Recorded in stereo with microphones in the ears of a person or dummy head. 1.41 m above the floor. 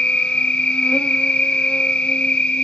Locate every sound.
0.0 s an insect: 5° left (ahead or behind), 0.9 m